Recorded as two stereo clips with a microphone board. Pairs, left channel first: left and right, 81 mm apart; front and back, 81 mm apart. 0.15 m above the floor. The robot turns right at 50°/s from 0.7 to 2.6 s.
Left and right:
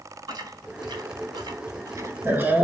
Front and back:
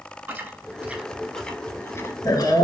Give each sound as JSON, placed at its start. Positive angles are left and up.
{"t": 0.3, "sound": "chewing", "azimuth_deg": -115, "distance_m": 0.5}